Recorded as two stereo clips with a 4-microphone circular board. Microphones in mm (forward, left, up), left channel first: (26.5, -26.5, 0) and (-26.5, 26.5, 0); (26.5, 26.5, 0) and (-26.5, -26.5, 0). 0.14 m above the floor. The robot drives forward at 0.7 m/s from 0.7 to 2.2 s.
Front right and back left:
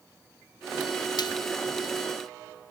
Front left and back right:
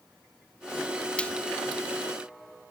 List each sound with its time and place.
1.2 s frying: 30° right